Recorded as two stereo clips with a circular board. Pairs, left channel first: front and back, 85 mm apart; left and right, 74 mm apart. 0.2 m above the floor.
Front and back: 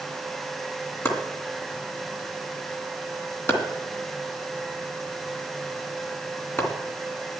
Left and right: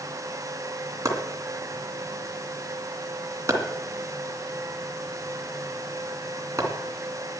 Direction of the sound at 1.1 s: 55° right.